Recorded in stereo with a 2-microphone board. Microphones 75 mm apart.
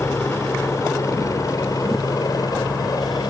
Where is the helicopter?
35° left (ahead or behind); by 3.3 s 60° left (ahead or behind).